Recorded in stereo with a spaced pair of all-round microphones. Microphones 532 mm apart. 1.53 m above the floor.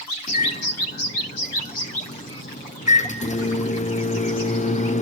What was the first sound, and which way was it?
A microwave, 15° left (ahead or behind).